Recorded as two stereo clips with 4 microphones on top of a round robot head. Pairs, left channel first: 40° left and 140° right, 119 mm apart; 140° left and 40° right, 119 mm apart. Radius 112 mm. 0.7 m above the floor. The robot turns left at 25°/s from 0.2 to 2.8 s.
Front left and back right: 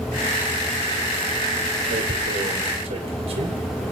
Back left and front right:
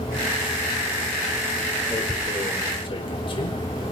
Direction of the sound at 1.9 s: 155° right.